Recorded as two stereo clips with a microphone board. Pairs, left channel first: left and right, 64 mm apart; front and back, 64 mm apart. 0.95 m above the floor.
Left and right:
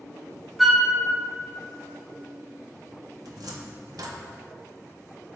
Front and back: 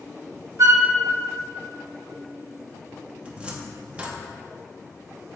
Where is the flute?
175° right, 1.0 m.